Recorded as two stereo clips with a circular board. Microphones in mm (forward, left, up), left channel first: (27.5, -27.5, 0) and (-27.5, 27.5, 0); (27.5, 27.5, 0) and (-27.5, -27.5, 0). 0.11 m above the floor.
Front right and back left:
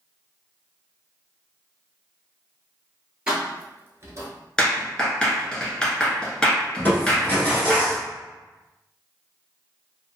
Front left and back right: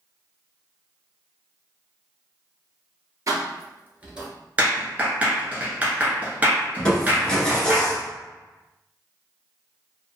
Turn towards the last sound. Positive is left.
turn(degrees=-20)